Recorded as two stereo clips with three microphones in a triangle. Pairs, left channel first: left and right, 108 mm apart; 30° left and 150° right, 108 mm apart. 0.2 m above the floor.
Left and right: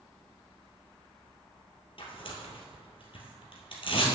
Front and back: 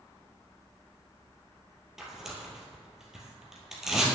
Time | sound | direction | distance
2.0 | tearing paper | 125° left | 2.0 m